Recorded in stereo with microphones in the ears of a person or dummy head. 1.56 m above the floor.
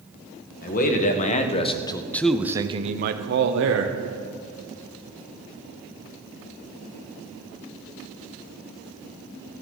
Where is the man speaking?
50° left (ahead or behind), 1.6 m; by 4.0 s 80° right, 1.2 m.